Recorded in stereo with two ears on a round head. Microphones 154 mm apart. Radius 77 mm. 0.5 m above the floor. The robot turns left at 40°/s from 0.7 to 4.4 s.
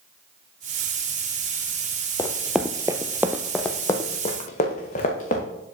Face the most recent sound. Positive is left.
turn(degrees=45)  # may be behind; listen again after turning